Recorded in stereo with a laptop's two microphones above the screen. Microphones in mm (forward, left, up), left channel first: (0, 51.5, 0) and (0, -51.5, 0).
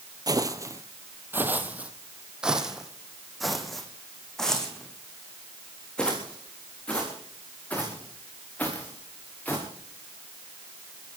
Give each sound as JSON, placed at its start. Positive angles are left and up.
{"t": 0.3, "sound": "footsteps", "side_deg": -35, "distance_m": 1.3}